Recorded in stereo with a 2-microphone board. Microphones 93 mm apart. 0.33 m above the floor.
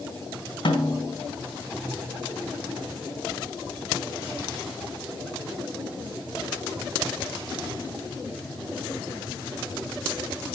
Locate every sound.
0.7 s a snare drum: 60° left (ahead or behind), 3.5 m